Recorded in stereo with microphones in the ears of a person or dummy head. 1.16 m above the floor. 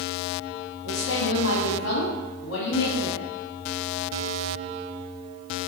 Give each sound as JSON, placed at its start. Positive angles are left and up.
{"t": 0.8, "sound": "a woman speaking", "side_deg": 85, "distance_m": 1.9}